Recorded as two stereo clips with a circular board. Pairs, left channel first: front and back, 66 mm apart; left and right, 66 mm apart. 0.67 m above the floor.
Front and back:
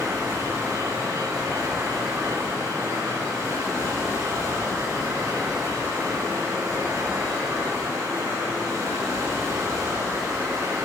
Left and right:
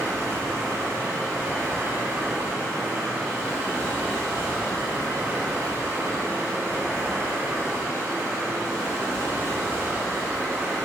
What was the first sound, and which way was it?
Running water, 135° right.